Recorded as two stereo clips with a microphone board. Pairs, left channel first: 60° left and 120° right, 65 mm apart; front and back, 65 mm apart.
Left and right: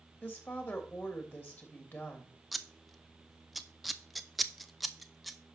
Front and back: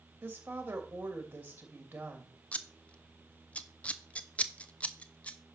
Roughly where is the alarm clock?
No alarm clock in this recording.